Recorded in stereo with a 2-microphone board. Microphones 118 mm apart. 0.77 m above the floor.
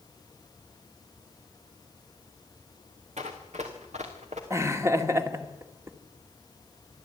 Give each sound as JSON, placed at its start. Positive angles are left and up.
{"t": 3.2, "sound": "running footsteps", "side_deg": -70, "distance_m": 3.0}
{"t": 4.5, "sound": "laughter", "side_deg": -25, "distance_m": 2.0}